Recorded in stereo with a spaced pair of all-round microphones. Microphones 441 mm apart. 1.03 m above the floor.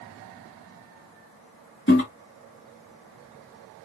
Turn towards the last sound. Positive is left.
turn(degrees=25)  # may be behind; listen again after turning